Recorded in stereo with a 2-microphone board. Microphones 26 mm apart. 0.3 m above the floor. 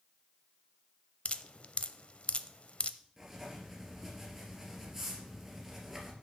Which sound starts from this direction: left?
Dripping, at 1.2 s.